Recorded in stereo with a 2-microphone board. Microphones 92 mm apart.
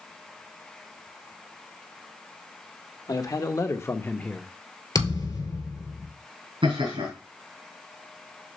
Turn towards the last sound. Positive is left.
turn(degrees=-70)  # may be behind; listen again after turning